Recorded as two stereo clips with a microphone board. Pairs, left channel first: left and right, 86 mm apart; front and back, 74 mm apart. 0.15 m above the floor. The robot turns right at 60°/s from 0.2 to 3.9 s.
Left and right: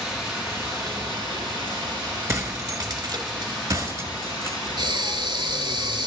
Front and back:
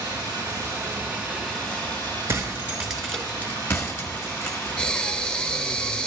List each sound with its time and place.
0.0 s running water: 170° right, 5 m; by 6.1 s 55° left, 5 m
2.3 s breaking glass: 135° right, 1.3 m; by 4.6 s 40° right, 1.3 m
4.8 s breathing: 75° right, 0.6 m